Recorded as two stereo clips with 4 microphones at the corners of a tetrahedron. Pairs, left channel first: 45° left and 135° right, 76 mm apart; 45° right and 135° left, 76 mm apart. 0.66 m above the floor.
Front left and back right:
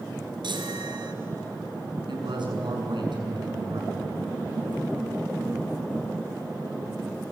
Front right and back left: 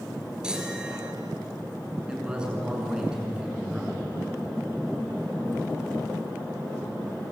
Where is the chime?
145° right, 3 m.